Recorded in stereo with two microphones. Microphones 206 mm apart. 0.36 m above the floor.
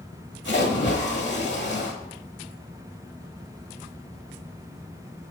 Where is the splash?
60° left (ahead or behind), 1.2 m.